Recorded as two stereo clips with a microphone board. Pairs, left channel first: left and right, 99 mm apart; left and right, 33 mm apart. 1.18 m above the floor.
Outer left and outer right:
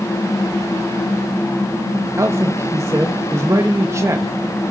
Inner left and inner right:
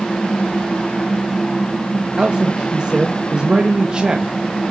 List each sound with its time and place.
2.2 s a man speaking: 30° right (ahead or behind), 1.6 m